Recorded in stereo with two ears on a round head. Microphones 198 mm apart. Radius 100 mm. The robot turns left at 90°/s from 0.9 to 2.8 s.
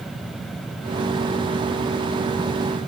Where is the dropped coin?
I don't hear a dropped coin.